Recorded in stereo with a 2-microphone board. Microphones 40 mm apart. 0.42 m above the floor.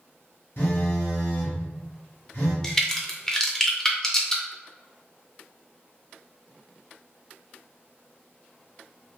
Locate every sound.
0.6 s a phone buzzing: 70° left (ahead or behind), 1.4 m
2.6 s a crack: 10° left (ahead or behind), 0.6 m